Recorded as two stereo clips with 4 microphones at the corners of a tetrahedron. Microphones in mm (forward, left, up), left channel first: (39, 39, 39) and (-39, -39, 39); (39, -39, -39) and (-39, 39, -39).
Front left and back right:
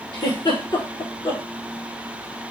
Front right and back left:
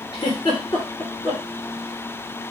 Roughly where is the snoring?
No snoring in this recording.